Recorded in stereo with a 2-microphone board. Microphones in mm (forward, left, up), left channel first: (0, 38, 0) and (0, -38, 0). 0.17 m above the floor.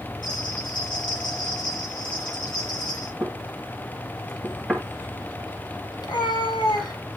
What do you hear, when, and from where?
0.2 s a bell: 85° left, 8 m
3.2 s knocking: centre (ahead or behind), 1.7 m
6.0 s a cat meowing: 80° left, 2.5 m